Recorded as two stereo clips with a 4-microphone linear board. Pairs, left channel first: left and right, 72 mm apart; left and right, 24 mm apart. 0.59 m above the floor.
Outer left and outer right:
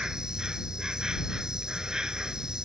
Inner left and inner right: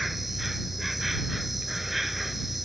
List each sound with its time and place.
0.0 s an insect: 10° right (ahead or behind)